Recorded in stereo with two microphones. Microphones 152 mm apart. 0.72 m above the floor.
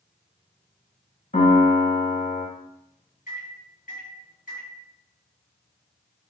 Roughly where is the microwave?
Left.